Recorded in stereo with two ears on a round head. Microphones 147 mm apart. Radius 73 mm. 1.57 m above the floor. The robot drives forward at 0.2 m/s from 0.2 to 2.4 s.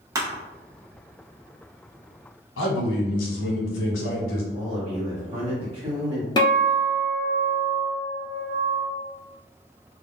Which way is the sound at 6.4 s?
25° left (ahead or behind).